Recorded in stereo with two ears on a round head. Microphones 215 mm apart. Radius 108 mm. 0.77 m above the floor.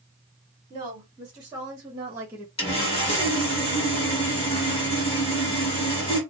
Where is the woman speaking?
20° right (ahead or behind), 1.7 m; by 2.5 s 5° right (ahead or behind), 0.7 m.